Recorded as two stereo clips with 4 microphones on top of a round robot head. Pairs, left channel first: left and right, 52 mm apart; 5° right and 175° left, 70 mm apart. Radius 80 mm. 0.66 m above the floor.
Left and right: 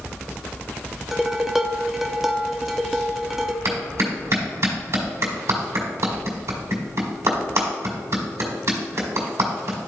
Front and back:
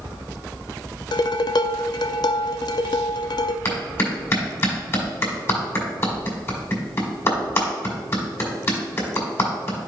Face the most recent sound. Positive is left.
turn(degrees=-60)